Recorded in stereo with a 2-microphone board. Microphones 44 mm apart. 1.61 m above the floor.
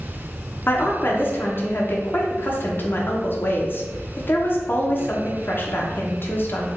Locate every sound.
0.7 s a woman speaking: 45° left (ahead or behind), 0.7 m